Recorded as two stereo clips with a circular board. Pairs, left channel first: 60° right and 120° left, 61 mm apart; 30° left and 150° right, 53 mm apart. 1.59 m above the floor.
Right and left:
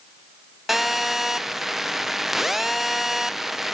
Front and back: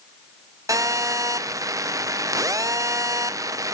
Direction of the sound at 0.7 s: 155° right.